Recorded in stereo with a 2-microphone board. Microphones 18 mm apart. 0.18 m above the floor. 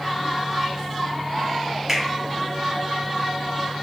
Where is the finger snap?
20° right (ahead or behind), 1.2 m.